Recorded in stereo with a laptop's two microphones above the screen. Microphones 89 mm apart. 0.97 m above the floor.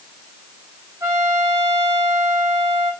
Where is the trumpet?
35° right (ahead or behind), 5 m.